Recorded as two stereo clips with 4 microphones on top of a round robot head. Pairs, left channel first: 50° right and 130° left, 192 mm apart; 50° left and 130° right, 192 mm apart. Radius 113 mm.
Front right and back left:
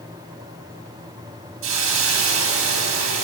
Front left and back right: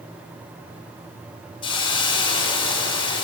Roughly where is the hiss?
Behind left.